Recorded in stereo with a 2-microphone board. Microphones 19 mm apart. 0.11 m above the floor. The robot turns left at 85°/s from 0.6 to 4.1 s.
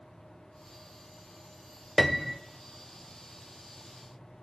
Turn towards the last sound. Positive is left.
turn(degrees=-175)